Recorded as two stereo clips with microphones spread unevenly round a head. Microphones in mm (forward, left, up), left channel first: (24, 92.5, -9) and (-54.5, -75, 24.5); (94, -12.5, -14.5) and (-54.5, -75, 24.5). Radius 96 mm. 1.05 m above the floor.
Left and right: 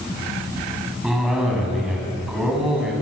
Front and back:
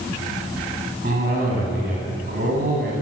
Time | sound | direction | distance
1.0 | a cough | 160° left | 8 m